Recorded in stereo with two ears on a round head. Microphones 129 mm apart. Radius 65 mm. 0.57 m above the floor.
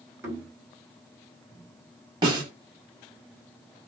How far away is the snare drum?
About 1.3 m.